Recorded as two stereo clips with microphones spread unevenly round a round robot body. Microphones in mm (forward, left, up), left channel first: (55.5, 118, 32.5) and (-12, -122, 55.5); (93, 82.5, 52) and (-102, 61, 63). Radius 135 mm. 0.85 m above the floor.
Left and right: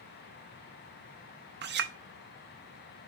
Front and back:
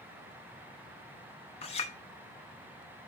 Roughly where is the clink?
Ahead right.